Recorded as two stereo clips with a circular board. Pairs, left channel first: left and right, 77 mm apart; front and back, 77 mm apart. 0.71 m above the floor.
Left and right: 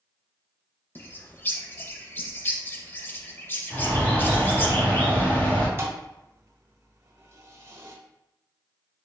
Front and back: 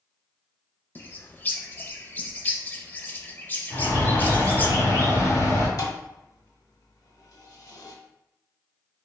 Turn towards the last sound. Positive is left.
turn(degrees=-35)